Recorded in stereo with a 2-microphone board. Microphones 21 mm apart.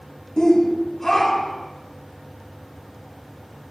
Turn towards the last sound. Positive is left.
turn(degrees=5)  # may be behind; listen again after turning